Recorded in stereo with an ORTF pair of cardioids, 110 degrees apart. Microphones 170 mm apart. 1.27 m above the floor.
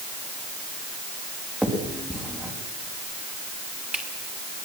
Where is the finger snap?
5° right, 5.5 m.